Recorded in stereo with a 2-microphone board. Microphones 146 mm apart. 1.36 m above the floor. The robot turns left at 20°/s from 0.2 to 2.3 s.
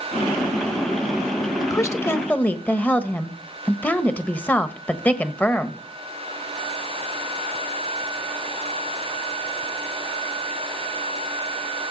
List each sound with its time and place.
1.6 s a woman speaking: 25° left (ahead or behind), 1.2 m; by 5.8 s 10° left (ahead or behind), 1.2 m